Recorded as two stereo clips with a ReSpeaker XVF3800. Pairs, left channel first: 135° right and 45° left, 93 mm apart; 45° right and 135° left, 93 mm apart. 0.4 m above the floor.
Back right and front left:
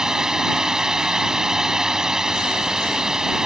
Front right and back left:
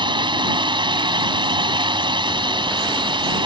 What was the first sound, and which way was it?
A drone, 130° left.